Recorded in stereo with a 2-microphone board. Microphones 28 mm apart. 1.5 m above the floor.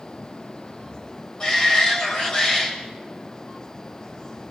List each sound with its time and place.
1.4 s a shout: 30° left (ahead or behind), 7.5 m